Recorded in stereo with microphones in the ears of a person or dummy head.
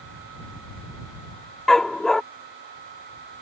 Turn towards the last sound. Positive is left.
turn(degrees=5)  # may be behind; listen again after turning